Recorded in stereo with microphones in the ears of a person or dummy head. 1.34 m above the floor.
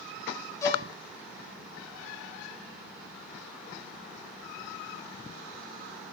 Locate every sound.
0.6 s a violin: 20° left (ahead or behind), 5 m